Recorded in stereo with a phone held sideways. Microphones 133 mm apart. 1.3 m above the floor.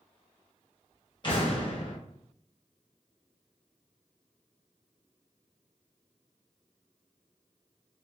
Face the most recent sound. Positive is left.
turn(degrees=35)  # may be behind; listen again after turning